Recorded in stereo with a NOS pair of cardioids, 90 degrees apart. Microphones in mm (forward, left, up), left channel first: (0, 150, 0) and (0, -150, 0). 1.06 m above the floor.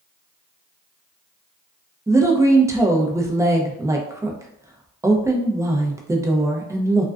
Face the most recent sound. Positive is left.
turn(degrees=-10)